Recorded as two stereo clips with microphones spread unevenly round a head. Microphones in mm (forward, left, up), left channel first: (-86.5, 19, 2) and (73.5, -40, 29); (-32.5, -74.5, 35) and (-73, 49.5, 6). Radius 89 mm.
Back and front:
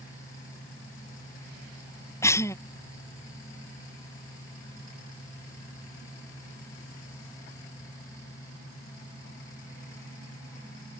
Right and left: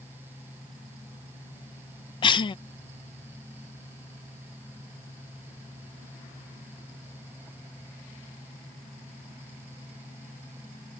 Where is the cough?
130° right.